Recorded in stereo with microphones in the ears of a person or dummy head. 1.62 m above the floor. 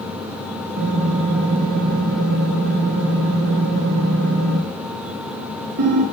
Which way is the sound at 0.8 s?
55° right (ahead or behind).